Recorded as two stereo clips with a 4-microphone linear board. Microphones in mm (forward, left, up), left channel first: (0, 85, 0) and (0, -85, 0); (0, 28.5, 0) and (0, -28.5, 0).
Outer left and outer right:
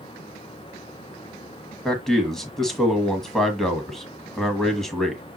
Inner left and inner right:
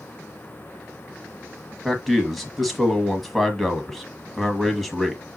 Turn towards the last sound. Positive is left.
turn(degrees=0)  # may be behind; listen again after turning